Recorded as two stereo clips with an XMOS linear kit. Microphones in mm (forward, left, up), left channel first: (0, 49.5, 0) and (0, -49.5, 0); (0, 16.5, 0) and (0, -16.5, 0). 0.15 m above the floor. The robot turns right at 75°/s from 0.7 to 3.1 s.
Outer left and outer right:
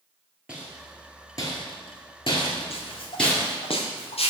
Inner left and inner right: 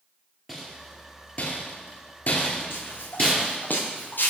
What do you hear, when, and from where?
0.5 s a rattle: 10° right (ahead or behind), 1.9 m; by 3.6 s 10° left (ahead or behind), 1.9 m
2.7 s footsteps: 80° left, 2.0 m